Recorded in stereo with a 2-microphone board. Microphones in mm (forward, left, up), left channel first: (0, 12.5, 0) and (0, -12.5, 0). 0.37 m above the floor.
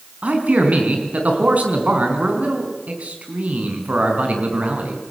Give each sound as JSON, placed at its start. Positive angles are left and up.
{"t": 0.2, "sound": "a man speaking", "side_deg": -75, "distance_m": 5.0}